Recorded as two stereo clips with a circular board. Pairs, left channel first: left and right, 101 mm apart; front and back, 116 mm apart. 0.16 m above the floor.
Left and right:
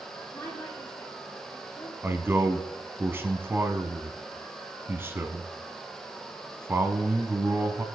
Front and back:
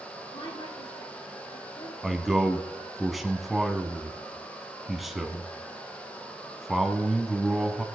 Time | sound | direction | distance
0.3 | a woman speaking | 30° left | 5 m
2.0 | a man speaking | 90° right | 1.0 m